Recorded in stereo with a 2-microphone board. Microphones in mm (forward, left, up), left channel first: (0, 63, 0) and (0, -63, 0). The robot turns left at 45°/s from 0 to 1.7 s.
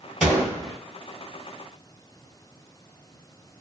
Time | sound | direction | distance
0.2 | a gunshot | 5° right (ahead or behind) | 1.3 m